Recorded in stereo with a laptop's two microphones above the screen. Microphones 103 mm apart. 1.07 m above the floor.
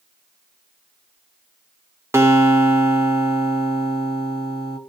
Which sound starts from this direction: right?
A guitar, at 2.1 s.